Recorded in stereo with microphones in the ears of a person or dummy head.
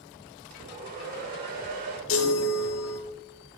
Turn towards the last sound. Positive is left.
turn(degrees=60)  # may be behind; listen again after turning